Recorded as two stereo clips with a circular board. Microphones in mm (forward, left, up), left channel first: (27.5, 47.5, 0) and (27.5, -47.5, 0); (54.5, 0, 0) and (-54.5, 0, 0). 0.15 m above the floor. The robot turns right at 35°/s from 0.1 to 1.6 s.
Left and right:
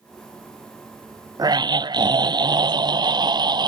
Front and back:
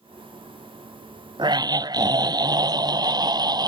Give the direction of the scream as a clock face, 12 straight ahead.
5 o'clock.